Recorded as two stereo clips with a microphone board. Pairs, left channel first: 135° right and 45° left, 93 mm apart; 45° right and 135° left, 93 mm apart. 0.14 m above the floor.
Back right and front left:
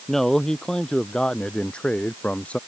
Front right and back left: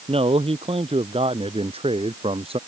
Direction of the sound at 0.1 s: 140° left.